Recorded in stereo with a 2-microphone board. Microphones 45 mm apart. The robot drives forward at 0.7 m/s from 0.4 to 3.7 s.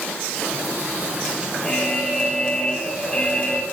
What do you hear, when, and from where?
1.6 s an alarm: 15° left (ahead or behind), 6 m; by 3.6 s 20° left (ahead or behind), 5 m